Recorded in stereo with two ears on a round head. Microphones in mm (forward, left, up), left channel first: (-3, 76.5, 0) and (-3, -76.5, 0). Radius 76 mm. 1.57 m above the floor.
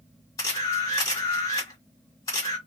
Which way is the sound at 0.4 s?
20° left (ahead or behind).